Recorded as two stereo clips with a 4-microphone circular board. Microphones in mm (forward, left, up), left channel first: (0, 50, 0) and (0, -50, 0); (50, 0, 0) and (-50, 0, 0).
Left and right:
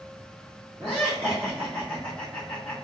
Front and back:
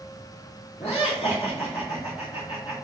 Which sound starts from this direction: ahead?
Laughter, at 0.8 s.